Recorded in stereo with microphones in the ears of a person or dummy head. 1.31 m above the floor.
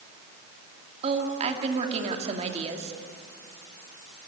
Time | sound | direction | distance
1.0 | a woman speaking | 45° right (ahead or behind) | 2.5 m